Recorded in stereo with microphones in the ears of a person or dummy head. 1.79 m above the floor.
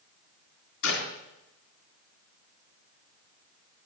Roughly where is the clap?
Left.